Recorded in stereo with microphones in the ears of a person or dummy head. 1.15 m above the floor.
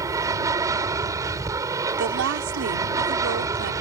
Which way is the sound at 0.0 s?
15° right (ahead or behind).